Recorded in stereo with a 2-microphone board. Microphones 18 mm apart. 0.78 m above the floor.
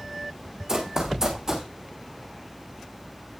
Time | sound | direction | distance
0.7 | running footsteps | 35° right (ahead or behind) | 3 m